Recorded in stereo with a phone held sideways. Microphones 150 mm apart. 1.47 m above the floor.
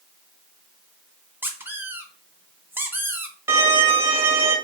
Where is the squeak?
15° right (ahead or behind), 0.6 m.